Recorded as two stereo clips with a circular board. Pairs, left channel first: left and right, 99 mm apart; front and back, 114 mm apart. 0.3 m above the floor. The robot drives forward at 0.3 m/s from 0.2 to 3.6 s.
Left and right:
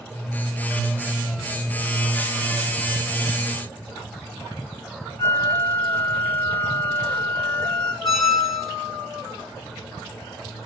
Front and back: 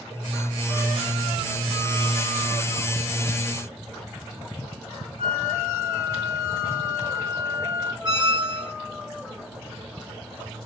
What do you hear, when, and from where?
5.2 s a flute: 155° left, 0.7 m
8.0 s a squeak: 175° left, 1.0 m